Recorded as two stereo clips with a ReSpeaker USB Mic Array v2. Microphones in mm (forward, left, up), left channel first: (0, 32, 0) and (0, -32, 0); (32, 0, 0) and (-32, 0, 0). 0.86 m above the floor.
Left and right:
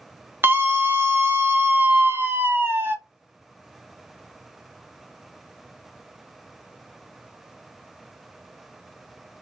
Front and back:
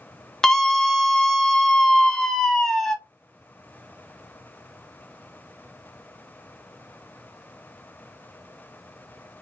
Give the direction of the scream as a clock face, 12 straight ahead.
3 o'clock.